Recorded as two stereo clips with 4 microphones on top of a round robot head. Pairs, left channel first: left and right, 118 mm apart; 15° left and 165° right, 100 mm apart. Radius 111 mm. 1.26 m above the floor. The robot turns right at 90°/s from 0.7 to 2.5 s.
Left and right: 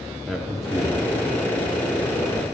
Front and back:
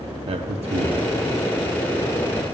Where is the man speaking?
Straight behind, 0.7 m; by 1.0 s 150° right, 0.7 m.